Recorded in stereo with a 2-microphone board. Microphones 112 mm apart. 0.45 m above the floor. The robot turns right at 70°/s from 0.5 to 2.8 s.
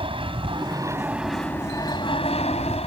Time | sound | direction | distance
0.0 | an aircraft | 55° right | ?